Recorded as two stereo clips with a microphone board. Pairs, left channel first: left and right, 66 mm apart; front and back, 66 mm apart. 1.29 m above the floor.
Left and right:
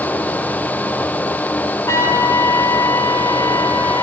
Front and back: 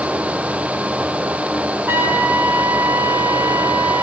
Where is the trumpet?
125° left, 2 m.